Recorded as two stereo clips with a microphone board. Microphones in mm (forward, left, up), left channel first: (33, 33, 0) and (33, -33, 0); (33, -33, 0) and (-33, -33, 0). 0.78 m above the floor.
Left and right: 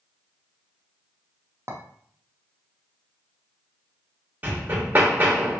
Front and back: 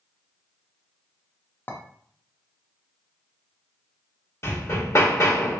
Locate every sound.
1.7 s a clink: 55° right, 0.6 m
4.4 s hammering: 30° right, 1.2 m